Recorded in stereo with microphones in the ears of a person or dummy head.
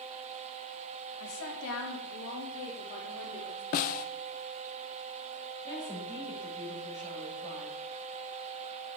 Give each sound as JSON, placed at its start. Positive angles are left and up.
{"t": 1.2, "sound": "a woman speaking", "side_deg": 85, "distance_m": 2.5}
{"t": 3.7, "sound": "a snare drum", "side_deg": 45, "distance_m": 0.8}
{"t": 5.6, "sound": "a woman speaking", "side_deg": 10, "distance_m": 5.5}